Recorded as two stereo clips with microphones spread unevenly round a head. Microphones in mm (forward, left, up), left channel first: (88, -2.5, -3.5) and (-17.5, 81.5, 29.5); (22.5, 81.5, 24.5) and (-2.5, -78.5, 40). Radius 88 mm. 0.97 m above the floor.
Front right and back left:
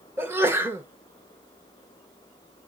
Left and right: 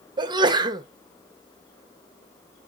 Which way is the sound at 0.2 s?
135° right.